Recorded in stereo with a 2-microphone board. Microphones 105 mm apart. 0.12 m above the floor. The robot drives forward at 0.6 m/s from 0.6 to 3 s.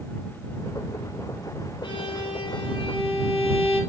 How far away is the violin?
About 3 m.